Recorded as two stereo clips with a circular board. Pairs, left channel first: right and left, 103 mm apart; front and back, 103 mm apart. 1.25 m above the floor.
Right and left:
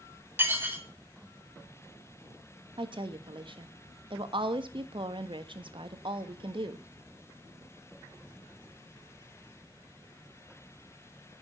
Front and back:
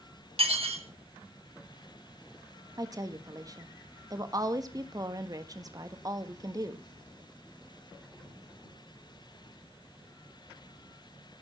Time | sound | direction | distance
0.4 | dishes clattering | 160° left | 1.8 m
2.8 | a woman speaking | 125° left | 1.3 m